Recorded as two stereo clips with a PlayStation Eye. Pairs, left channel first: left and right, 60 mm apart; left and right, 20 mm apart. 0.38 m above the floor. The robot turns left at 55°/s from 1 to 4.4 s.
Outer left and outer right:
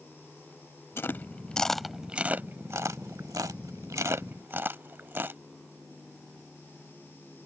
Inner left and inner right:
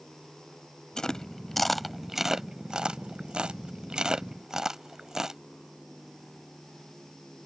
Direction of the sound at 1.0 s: 40° left (ahead or behind).